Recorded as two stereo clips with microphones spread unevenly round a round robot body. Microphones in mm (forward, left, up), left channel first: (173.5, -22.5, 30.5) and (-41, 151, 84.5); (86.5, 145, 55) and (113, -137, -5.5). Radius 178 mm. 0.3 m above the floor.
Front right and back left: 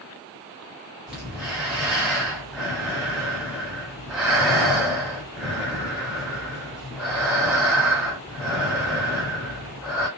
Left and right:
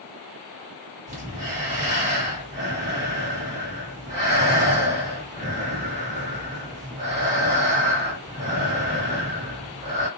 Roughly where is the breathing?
Behind right.